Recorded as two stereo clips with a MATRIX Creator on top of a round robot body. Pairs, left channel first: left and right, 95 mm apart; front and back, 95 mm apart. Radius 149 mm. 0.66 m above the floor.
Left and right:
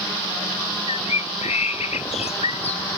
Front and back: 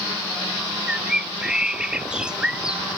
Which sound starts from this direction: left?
A bird, at 0.9 s.